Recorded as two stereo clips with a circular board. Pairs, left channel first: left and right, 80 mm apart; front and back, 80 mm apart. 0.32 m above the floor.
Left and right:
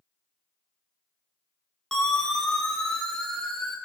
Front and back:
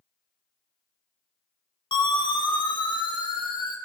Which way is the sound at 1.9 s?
5° left.